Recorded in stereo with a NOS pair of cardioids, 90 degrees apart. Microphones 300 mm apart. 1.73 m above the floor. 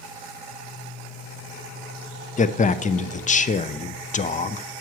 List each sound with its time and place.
2.4 s a man speaking: 25° left, 0.7 m